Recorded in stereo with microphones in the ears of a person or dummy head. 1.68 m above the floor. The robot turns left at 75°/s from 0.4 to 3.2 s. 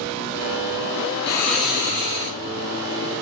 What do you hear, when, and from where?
1.3 s snoring: 30° left, 2.5 m; by 2.4 s 50° right, 2.5 m